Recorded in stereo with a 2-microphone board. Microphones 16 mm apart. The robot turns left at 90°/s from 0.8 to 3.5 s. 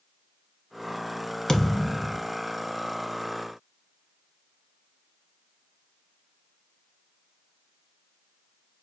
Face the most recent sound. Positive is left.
turn(degrees=-125)